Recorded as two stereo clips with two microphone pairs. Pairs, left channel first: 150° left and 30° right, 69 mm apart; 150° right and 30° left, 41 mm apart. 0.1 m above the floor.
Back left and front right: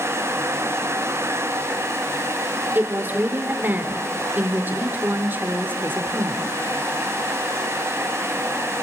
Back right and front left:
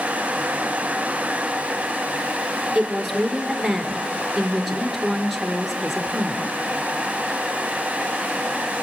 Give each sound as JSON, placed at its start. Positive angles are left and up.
{"t": 2.8, "sound": "a woman speaking", "azimuth_deg": -60, "distance_m": 2.0}